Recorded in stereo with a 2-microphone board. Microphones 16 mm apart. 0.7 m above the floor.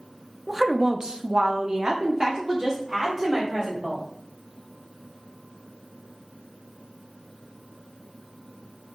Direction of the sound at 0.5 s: 10° right (ahead or behind).